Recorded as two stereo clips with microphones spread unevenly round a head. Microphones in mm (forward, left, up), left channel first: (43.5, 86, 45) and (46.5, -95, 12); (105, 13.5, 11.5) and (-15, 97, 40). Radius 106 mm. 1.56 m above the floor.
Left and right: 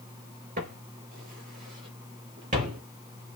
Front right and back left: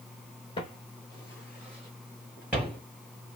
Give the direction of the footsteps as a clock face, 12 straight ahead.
3 o'clock.